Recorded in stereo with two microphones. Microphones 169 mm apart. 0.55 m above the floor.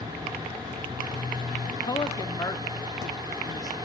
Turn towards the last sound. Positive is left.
turn(degrees=25)  # may be behind; listen again after turning